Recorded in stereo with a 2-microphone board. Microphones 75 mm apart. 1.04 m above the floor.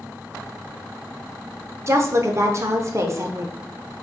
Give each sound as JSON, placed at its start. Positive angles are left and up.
{"t": 1.9, "sound": "a woman speaking", "side_deg": -40, "distance_m": 0.6}